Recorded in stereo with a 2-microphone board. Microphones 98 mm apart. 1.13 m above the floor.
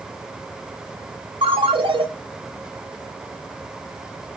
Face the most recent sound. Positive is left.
turn(degrees=-70)  # may be behind; listen again after turning